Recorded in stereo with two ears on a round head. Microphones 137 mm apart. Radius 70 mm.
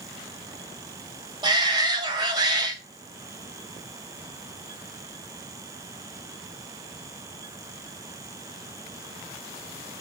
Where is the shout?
30° right (ahead or behind), 0.7 m.